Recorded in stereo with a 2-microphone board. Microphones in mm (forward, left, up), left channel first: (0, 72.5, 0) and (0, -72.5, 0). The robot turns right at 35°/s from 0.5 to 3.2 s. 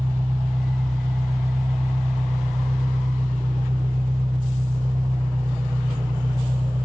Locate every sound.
0.0 s an engine running: 135° right, 1.2 m; by 6.9 s 45° right, 1.2 m